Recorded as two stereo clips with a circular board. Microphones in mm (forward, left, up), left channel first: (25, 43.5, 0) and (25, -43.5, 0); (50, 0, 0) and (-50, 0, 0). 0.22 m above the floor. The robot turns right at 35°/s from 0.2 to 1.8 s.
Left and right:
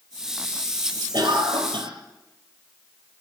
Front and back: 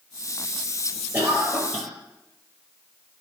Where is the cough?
110° right, 4 m; by 1.9 s 85° right, 4 m.